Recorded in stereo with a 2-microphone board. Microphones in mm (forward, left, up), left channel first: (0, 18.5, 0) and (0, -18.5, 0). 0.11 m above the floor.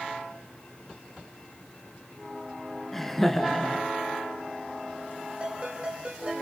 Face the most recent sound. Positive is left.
turn(degrees=-30)  # may be behind; listen again after turning